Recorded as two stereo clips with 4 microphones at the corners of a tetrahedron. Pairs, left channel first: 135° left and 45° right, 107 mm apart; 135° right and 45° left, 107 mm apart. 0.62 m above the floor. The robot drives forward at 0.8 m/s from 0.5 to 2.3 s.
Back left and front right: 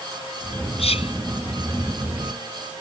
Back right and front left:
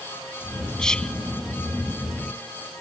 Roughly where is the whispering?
Behind left.